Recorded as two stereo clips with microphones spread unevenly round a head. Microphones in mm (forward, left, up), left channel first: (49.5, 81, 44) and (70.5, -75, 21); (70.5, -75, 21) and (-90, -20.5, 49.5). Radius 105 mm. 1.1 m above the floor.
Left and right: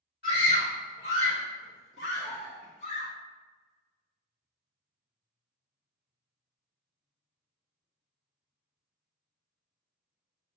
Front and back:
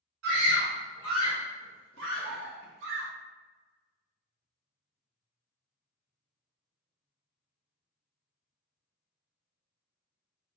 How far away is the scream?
About 2.0 m.